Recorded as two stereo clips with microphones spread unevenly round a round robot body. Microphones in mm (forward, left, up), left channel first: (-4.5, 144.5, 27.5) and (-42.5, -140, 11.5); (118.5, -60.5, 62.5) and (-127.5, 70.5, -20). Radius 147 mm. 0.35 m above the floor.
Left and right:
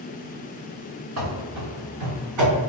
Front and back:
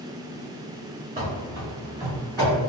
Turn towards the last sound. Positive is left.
turn(degrees=-130)